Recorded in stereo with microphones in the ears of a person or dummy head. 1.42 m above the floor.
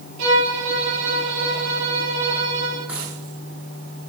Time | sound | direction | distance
0.2 | a violin | 80° right | 9.5 m
2.9 | a dropped coin | 15° right (ahead or behind) | 6 m